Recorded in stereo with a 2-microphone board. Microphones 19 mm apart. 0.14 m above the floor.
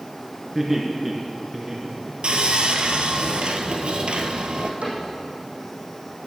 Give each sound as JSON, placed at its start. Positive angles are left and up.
{"t": 0.6, "sound": "laughter", "side_deg": -5, "distance_m": 2.0}
{"t": 2.2, "sound": "sawing", "side_deg": -65, "distance_m": 1.2}
{"t": 4.8, "sound": "a cupboard door", "side_deg": -80, "distance_m": 5.5}